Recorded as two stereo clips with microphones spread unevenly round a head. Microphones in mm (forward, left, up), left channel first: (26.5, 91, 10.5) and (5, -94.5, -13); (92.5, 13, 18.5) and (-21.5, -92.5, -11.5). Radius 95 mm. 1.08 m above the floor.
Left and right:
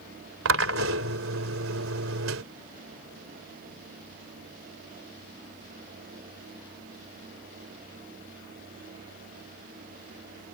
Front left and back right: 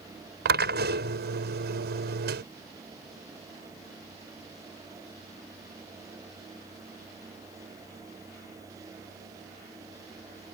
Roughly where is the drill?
Behind right.